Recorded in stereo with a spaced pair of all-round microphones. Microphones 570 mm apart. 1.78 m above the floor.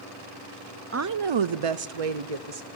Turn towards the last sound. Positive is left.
turn(degrees=-80)